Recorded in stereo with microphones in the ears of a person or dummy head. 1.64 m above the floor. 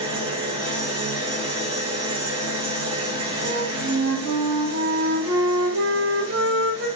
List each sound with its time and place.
0.0 s an engine running: 25° right (ahead or behind), 1.8 m
3.4 s a flute: 75° right (ahead or behind), 2.5 m